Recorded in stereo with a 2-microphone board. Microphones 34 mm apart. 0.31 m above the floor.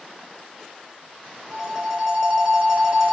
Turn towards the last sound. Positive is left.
turn(degrees=-15)  # may be behind; listen again after turning